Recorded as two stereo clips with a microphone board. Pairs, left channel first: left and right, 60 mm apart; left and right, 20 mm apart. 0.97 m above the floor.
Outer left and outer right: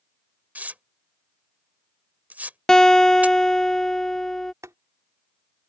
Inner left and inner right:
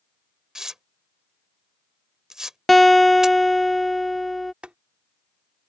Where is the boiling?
60° right (ahead or behind).